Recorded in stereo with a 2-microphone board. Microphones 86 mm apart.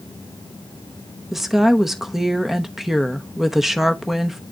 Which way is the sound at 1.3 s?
5° right (ahead or behind).